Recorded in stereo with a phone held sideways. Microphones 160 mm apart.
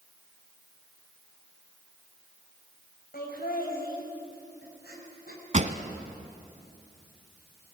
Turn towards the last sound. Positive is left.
turn(degrees=-50)  # may be behind; listen again after turning